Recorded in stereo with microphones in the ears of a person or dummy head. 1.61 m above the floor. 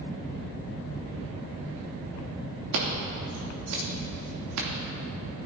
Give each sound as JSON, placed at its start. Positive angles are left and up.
{"t": 2.7, "sound": "scissors", "side_deg": -70, "distance_m": 2.5}